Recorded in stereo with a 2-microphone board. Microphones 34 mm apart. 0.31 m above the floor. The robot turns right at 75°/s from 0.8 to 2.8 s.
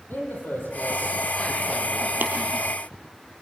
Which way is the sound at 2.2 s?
60° right (ahead or behind).